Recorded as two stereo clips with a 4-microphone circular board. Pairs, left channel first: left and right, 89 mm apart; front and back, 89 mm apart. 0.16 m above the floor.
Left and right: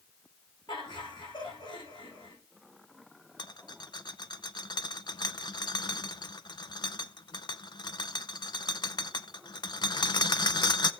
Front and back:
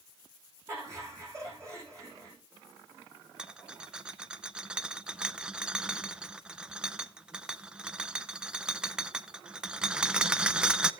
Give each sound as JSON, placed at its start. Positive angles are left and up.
{"t": 0.7, "sound": "laughter", "azimuth_deg": 125, "distance_m": 8.5}
{"t": 3.4, "sound": "a rattle", "azimuth_deg": 105, "distance_m": 0.6}